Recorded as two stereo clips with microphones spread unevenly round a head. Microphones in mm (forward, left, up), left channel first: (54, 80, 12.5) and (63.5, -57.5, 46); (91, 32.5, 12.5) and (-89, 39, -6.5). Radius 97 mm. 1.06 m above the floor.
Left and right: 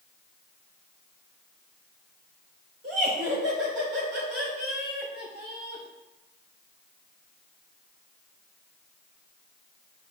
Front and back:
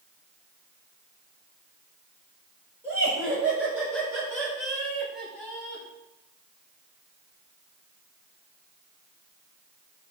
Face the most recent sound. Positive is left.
turn(degrees=-85)